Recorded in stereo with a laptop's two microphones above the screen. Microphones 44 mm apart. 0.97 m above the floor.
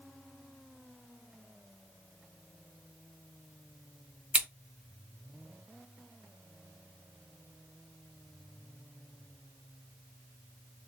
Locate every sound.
4.3 s scissors: 30° right (ahead or behind), 1.4 m